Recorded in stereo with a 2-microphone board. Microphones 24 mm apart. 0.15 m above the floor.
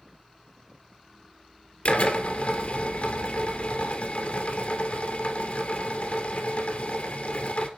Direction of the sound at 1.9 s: 60° left (ahead or behind).